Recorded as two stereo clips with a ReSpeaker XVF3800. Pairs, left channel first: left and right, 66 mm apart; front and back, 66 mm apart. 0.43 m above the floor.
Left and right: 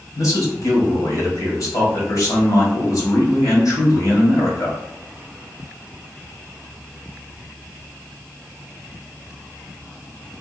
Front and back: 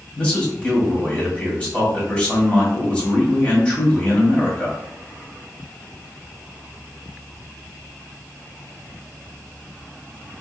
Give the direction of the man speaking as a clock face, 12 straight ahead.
10 o'clock.